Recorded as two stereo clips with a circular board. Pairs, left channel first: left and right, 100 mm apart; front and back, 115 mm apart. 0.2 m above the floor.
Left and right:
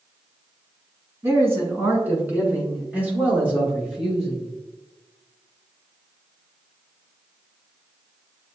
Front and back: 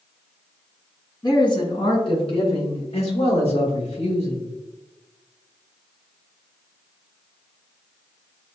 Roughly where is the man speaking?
Ahead right.